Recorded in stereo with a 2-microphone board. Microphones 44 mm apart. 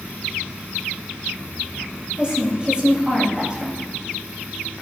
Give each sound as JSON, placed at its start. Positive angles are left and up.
{"t": 2.2, "sound": "a woman speaking", "side_deg": -20, "distance_m": 2.0}